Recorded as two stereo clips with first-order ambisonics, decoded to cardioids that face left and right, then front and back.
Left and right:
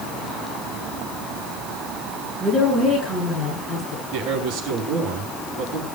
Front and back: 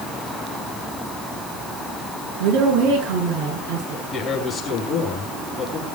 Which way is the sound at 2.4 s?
170° left.